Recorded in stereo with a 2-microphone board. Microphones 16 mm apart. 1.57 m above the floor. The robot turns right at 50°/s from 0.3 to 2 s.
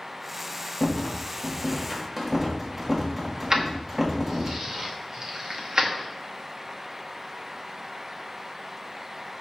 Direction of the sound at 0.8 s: 40° left (ahead or behind).